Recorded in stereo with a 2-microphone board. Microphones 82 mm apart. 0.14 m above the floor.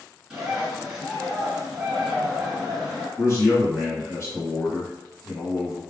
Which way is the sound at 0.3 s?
5° right (ahead or behind).